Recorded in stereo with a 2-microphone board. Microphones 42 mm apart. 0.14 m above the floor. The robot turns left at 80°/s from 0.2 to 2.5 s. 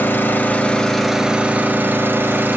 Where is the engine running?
65° left, 0.9 m; by 2.6 s 115° right, 0.9 m.